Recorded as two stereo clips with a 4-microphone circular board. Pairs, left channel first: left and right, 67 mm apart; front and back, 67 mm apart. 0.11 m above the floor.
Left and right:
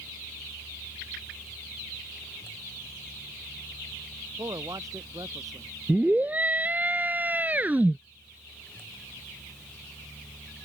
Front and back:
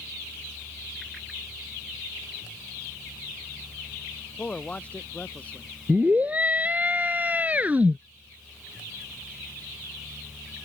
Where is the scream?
135° right.